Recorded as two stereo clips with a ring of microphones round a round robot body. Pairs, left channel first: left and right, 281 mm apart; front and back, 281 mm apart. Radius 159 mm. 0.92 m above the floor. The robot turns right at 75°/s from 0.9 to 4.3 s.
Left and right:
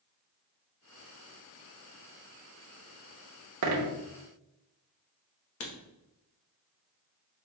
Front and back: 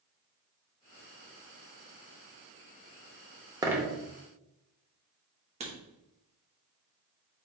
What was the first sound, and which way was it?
A dropped coin, 105° right.